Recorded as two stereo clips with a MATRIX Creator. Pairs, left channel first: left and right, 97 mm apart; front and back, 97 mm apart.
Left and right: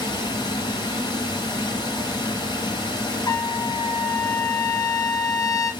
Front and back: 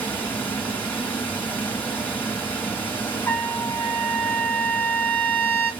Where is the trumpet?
60° left, 0.6 m.